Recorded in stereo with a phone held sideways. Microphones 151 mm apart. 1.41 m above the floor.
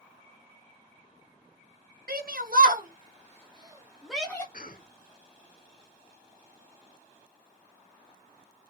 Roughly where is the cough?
Left.